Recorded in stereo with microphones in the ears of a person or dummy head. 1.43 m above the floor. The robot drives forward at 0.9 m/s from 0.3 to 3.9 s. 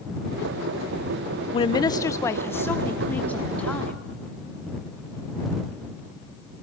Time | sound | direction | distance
1.5 | a woman speaking | 30° left (ahead or behind) | 0.7 m